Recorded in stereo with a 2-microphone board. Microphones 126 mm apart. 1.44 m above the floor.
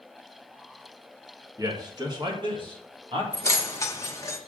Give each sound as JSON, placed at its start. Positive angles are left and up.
{"t": 1.6, "sound": "a man speaking", "side_deg": -25, "distance_m": 1.6}
{"t": 3.3, "sound": "keys jangling", "side_deg": 20, "distance_m": 1.1}